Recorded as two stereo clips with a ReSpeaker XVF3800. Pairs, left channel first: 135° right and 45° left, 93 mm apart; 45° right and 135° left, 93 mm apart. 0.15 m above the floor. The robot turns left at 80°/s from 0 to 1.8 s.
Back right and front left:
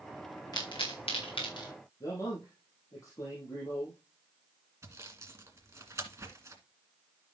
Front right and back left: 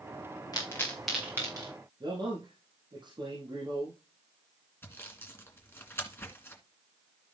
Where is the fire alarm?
I don't hear a fire alarm.